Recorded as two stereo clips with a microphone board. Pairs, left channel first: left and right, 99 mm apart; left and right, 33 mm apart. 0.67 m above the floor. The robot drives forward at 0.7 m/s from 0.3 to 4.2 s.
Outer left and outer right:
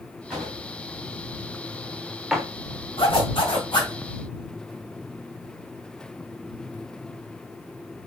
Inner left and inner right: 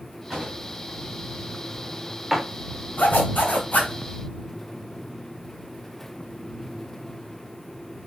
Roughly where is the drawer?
Centre.